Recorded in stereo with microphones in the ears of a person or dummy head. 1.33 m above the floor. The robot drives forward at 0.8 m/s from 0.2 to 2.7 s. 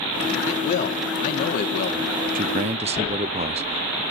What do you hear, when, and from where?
0.5 s a man speaking: 40° left (ahead or behind), 4 m; by 2.0 s 55° left (ahead or behind), 3 m
2.4 s a man speaking: 40° right (ahead or behind), 0.6 m; by 4.0 s 35° right (ahead or behind), 0.6 m